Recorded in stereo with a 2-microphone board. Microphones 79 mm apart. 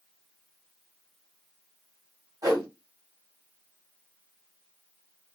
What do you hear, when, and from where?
2.4 s a whoosh: 50° right (ahead or behind), 1.8 m